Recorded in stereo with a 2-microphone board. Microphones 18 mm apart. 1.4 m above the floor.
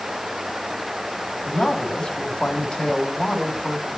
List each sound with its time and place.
1.4 s a man speaking: 85° left, 3.5 m